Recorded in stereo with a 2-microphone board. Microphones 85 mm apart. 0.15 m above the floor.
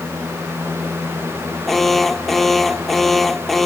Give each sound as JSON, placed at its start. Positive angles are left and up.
{"t": 1.7, "sound": "an alarm", "side_deg": 0}